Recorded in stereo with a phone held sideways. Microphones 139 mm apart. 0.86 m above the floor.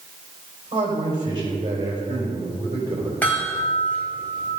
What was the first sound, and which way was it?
A man speaking, 35° right (ahead or behind).